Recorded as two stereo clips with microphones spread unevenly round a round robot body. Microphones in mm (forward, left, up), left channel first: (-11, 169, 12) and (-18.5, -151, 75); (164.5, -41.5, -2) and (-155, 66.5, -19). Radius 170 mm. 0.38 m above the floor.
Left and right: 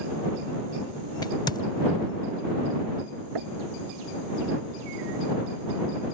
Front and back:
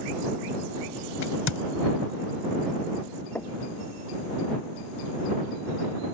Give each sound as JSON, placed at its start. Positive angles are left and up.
{"t": 1.2, "sound": "a crack", "azimuth_deg": 20}
{"t": 3.4, "sound": "knocking", "azimuth_deg": -105}